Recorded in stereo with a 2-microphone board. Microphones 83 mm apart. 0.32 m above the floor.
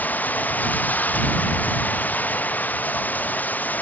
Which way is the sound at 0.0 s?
20° left (ahead or behind).